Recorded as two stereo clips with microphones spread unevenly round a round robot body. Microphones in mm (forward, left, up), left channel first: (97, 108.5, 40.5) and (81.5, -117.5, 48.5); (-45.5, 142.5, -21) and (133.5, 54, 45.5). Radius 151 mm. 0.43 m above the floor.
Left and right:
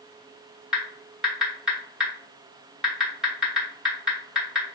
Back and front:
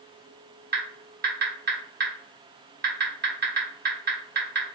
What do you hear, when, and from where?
0.7 s typing on a keyboard: 5° right, 1.2 m